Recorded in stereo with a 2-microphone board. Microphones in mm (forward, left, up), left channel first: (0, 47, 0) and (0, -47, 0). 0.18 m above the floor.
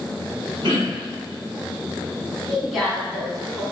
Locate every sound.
0.6 s throat clearing: 60° right (ahead or behind), 1.9 m
2.5 s a woman speaking: centre (ahead or behind), 1.2 m